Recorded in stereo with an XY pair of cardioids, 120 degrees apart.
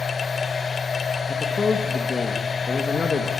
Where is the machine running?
30° left, 1.0 m.